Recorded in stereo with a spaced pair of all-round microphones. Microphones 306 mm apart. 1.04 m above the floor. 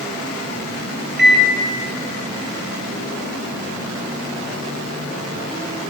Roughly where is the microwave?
Right.